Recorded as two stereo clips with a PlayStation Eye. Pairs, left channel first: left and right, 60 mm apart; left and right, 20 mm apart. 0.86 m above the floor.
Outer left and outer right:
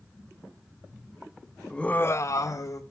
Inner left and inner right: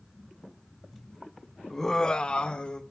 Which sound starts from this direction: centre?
Laughter, at 1.7 s.